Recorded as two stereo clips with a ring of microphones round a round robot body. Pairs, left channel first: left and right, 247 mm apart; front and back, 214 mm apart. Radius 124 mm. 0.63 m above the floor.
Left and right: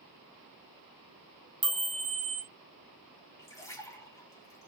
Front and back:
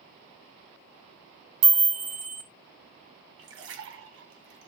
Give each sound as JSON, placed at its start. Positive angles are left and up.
{"t": 1.6, "sound": "a chime", "azimuth_deg": 180, "distance_m": 1.9}
{"t": 3.4, "sound": "a splash", "azimuth_deg": 170, "distance_m": 2.0}